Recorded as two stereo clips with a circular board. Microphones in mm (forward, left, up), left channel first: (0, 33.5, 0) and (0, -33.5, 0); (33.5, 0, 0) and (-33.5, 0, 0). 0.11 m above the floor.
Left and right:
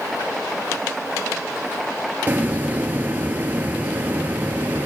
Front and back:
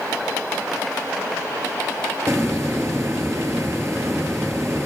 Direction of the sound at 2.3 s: 145° right.